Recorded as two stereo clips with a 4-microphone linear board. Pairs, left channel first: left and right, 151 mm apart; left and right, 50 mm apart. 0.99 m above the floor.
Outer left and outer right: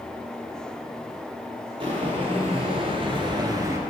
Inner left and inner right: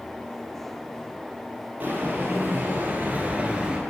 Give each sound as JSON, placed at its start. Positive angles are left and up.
{"t": 1.8, "sound": "footsteps", "side_deg": -35, "distance_m": 1.8}